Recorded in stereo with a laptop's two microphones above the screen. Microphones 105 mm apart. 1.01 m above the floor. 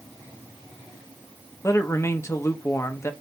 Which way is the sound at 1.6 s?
25° left (ahead or behind).